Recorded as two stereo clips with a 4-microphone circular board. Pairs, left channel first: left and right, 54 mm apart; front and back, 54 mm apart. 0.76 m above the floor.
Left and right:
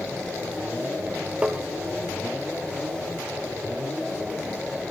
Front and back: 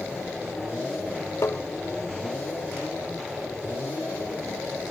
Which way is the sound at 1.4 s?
25° right.